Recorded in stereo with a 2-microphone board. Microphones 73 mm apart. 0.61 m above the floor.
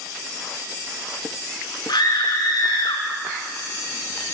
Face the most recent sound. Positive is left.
turn(degrees=80)